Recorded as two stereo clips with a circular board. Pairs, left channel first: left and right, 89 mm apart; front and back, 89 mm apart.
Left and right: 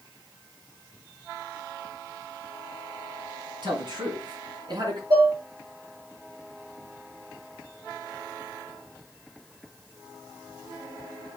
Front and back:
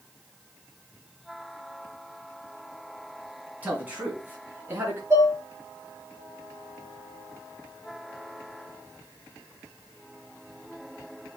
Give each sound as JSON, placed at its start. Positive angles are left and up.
{"t": 3.6, "sound": "a man speaking", "azimuth_deg": -110, "distance_m": 3.5}
{"t": 5.1, "sound": "dishes clattering", "azimuth_deg": -125, "distance_m": 4.5}